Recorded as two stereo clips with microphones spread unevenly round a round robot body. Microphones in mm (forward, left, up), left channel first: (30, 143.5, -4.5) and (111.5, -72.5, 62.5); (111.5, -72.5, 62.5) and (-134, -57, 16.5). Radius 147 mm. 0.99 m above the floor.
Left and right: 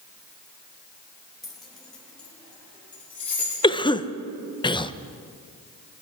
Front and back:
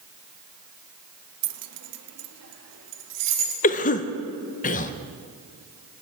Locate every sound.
1.4 s keys jangling: 160° right, 0.7 m; by 3.5 s 165° right, 1.9 m
3.6 s a cough: 60° left, 0.6 m